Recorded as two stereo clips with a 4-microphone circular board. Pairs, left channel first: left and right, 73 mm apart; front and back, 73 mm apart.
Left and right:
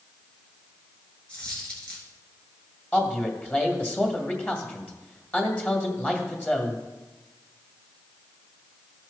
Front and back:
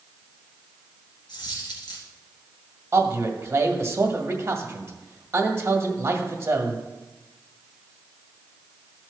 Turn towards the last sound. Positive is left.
turn(degrees=150)